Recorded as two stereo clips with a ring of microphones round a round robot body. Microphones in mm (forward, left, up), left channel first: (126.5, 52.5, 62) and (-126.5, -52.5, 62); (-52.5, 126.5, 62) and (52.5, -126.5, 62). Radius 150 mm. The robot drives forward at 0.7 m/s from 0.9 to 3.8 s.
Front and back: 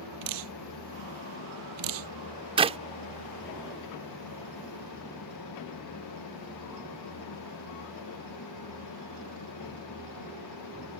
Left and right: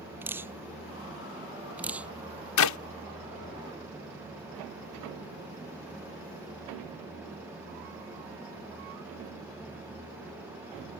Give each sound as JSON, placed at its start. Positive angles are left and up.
{"t": 0.2, "sound": "dripping", "azimuth_deg": -150}
{"t": 2.6, "sound": "a clap", "azimuth_deg": 130}